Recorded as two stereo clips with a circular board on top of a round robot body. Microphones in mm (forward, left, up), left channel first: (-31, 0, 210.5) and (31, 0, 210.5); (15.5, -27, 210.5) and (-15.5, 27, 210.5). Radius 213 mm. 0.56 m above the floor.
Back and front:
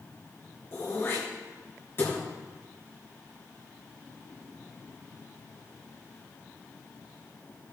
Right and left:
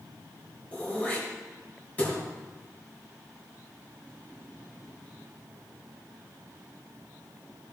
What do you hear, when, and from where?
0.7 s throat clearing: 125° right, 2.5 m